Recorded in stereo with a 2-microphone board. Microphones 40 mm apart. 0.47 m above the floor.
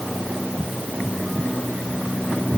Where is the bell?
I don't hear a bell.